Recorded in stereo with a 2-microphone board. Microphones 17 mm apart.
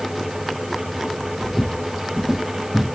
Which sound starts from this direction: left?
Footsteps, at 1.4 s.